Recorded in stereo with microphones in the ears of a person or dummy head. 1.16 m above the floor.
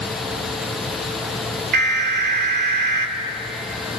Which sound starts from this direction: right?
An alarm, at 1.7 s.